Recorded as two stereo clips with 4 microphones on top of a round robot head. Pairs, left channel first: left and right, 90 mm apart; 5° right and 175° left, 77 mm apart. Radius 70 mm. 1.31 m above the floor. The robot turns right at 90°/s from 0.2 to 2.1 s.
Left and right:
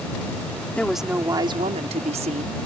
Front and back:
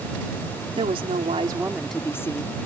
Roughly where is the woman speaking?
Behind.